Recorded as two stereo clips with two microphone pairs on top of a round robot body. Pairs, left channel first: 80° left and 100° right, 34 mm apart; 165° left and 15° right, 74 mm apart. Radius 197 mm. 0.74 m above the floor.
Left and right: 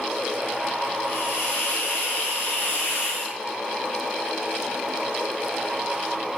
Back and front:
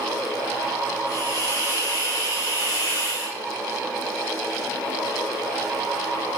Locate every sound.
1.1 s a hiss: 110° left, 0.6 m